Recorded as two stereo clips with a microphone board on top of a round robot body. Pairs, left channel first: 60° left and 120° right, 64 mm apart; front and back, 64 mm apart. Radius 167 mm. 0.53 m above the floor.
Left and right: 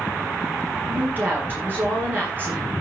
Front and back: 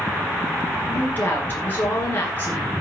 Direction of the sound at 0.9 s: 60° right.